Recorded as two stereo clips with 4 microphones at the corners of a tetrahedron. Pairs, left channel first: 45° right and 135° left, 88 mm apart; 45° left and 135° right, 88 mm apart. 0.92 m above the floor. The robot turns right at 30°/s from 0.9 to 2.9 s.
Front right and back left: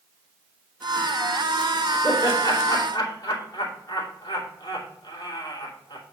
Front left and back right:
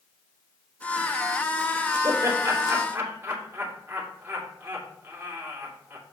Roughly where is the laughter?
Right.